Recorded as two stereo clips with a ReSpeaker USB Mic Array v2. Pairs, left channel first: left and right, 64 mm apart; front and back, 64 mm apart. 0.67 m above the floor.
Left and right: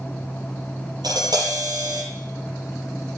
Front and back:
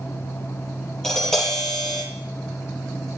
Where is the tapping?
80° right, 9 m.